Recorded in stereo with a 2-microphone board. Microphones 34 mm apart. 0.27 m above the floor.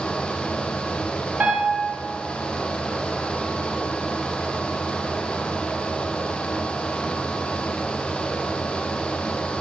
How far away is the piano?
About 1.7 m.